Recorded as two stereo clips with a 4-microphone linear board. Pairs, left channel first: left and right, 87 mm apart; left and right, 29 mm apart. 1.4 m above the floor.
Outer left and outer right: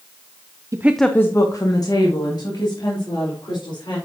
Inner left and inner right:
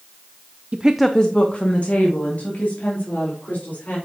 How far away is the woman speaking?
About 0.5 m.